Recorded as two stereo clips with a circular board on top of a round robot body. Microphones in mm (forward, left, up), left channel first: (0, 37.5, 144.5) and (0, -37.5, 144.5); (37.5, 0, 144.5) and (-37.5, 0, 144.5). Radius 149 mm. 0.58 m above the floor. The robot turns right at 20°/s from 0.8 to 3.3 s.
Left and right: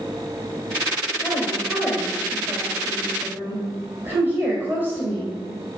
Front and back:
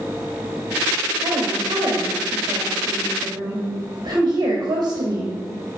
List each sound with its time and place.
1.2 s a woman speaking: 165° left, 3 m; by 5.4 s 150° right, 3 m